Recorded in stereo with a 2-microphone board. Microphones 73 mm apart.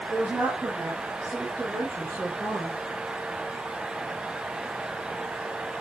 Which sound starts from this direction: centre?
A woman speaking, at 0.1 s.